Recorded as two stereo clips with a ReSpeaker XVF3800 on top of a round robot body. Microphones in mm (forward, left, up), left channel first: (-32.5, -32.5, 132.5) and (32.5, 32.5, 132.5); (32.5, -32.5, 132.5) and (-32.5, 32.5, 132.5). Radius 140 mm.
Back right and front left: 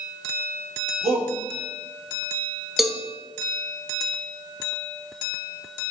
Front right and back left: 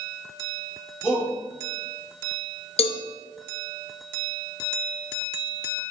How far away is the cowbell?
About 0.8 m.